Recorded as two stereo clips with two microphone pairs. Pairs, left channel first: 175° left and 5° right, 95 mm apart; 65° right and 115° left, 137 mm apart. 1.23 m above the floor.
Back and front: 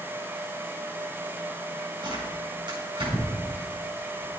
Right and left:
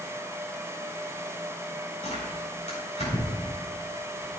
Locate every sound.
2.0 s tearing paper: 35° right, 4.5 m